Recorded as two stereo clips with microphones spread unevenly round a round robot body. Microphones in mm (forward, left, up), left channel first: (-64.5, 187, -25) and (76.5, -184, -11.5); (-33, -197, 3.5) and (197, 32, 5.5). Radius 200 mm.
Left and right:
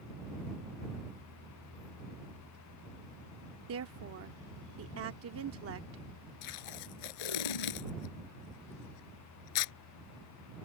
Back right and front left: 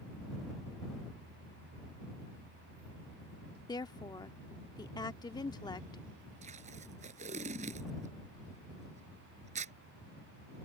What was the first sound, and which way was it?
A woman speaking, 70° right.